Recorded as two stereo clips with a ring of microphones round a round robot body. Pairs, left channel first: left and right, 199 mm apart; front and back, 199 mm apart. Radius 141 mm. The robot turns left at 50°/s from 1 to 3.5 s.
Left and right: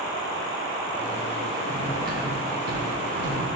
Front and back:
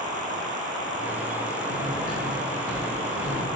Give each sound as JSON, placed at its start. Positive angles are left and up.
{"t": 1.7, "sound": "cutlery clinking", "azimuth_deg": -35, "distance_m": 1.6}